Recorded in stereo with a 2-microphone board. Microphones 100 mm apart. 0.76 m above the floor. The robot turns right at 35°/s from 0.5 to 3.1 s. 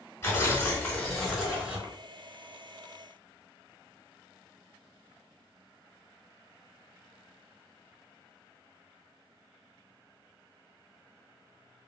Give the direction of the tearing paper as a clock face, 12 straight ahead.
7 o'clock.